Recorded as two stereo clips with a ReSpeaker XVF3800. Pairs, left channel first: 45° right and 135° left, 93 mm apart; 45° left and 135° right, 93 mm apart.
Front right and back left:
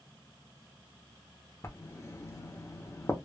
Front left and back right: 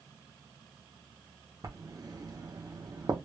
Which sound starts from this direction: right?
Writing, at 1.6 s.